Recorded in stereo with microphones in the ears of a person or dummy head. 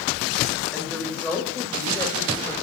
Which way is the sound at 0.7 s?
10° left (ahead or behind).